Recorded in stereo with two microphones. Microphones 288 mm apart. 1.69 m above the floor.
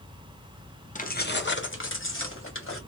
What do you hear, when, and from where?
0.9 s keys jangling: 25° left (ahead or behind), 0.6 m; by 2.8 s 45° left (ahead or behind), 1.3 m